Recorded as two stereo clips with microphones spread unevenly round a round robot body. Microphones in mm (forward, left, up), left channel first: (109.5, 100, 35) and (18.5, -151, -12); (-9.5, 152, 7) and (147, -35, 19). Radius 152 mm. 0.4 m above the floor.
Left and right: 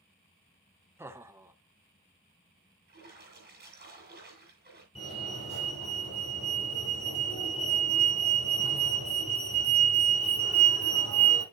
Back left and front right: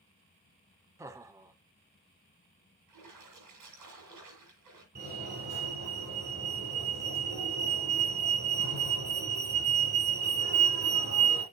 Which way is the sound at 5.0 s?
Straight ahead.